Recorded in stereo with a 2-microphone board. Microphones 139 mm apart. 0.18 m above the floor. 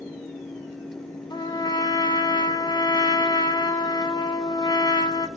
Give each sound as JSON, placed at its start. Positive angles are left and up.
{"t": 1.3, "sound": "a trumpet", "side_deg": 30, "distance_m": 0.6}